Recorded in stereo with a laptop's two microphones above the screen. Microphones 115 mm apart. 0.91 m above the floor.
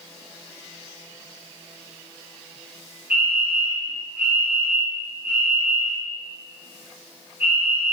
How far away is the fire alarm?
About 5.5 m.